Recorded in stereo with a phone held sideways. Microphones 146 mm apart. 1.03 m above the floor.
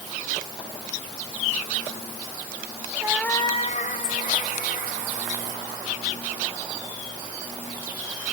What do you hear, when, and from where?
3.0 s a cat meowing: 25° right (ahead or behind), 0.7 m; by 5.9 s 80° left, 4.5 m